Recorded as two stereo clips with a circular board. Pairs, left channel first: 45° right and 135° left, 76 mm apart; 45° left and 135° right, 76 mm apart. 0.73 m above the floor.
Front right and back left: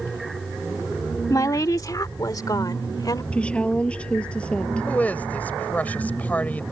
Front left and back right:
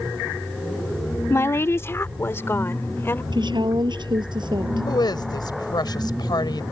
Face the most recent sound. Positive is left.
turn(degrees=25)